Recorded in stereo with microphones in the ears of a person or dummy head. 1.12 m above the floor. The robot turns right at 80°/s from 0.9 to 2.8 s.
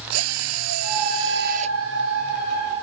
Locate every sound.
0.1 s a drill: 95° right; by 1.8 s 25° right